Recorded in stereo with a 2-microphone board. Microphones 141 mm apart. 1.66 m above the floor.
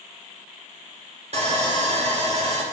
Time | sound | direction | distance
1.3 | sawing | 45° right (ahead or behind) | 2 m